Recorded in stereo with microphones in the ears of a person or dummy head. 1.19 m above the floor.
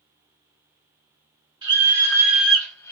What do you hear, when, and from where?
1.6 s a scream: 30° right (ahead or behind), 0.9 m; by 2.9 s 20° left (ahead or behind), 0.7 m